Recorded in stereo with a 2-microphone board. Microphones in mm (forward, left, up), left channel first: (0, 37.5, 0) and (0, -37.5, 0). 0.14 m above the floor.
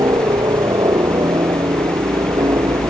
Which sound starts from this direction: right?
A helicopter, at 0.0 s.